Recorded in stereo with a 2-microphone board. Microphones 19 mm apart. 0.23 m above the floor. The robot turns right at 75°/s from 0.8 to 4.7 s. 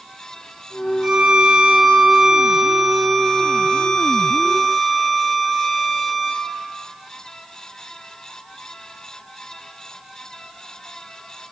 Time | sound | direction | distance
1.0 | a violin | 115° right | 0.9 m